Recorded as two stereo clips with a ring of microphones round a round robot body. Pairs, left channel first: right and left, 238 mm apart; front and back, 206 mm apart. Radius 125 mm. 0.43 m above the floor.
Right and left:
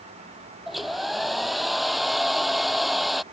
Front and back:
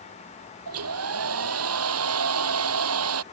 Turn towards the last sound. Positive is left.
turn(degrees=180)